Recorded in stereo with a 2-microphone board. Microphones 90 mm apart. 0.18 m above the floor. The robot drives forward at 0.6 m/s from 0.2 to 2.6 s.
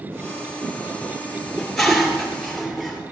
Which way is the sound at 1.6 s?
Centre (ahead or behind).